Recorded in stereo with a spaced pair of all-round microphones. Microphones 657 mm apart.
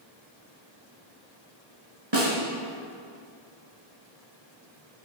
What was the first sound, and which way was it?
A snare drum, 45° right (ahead or behind).